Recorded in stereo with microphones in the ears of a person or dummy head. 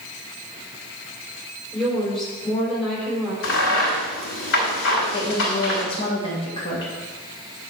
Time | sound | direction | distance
1.7 | a woman speaking | 5° right (ahead or behind) | 4.5 m
3.4 | a crack | 75° left (ahead or behind) | 4 m
5.1 | a woman speaking | 30° left (ahead or behind) | 2 m